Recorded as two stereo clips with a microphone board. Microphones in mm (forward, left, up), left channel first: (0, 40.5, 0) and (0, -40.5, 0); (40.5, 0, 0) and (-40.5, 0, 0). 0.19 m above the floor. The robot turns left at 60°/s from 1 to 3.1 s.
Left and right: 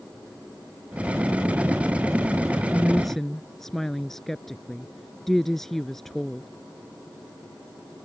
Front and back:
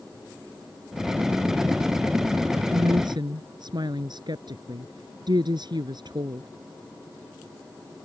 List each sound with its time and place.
2.7 s a woman speaking: 160° right; by 6.5 s 175° left